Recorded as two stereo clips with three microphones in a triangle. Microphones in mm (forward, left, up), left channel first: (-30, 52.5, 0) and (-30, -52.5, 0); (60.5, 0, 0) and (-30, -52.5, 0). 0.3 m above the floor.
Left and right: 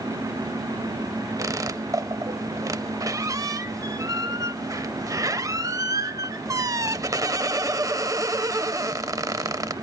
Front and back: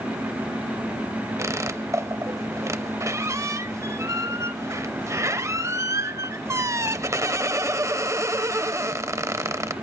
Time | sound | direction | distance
1.4 | a squeak | 115° right | 0.6 m